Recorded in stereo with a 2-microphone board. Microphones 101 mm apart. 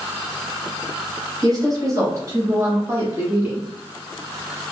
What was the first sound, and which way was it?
A woman speaking, 40° right (ahead or behind).